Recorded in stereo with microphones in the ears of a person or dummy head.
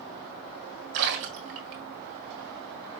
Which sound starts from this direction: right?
A splash, at 0.9 s.